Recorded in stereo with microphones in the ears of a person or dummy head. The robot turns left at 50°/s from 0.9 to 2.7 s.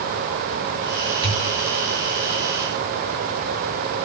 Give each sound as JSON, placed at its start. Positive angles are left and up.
{"t": 1.2, "sound": "a pop", "side_deg": -30, "distance_m": 2.0}